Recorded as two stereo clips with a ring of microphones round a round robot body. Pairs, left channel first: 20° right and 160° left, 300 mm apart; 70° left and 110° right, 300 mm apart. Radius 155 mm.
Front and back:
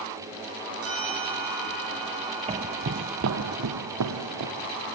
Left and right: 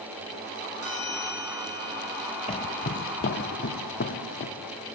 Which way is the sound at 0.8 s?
155° right.